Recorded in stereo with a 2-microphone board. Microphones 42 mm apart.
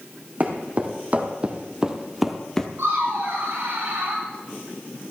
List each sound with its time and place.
0.4 s footsteps: 40° right (ahead or behind), 3.5 m; by 2.7 s 15° left (ahead or behind), 1.7 m
2.8 s laughter: 65° right (ahead or behind), 7 m